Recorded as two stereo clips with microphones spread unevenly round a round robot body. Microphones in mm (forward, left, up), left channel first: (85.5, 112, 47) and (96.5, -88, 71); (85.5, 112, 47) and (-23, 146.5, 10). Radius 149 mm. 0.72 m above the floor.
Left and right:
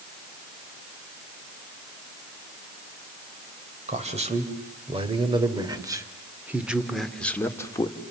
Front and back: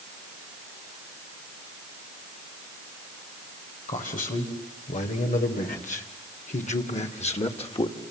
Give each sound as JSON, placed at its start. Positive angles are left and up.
{"t": 3.9, "sound": "a man speaking", "azimuth_deg": -30, "distance_m": 4.0}